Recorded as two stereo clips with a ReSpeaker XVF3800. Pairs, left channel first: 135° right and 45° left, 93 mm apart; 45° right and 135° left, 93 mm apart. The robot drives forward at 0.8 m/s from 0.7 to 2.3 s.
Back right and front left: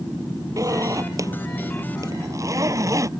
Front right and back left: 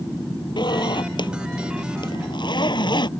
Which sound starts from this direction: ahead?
A zipper, at 0.6 s.